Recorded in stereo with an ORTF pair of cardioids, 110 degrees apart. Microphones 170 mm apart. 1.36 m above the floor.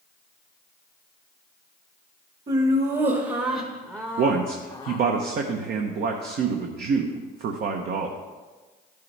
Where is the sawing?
I don't hear sawing.